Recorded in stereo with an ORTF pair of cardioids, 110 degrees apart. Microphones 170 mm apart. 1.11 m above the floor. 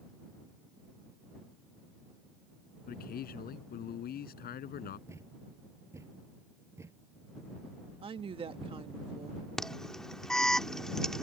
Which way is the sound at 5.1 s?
15° right.